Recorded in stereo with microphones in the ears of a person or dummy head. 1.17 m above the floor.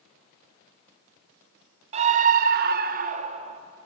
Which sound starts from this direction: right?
A scream, at 1.9 s.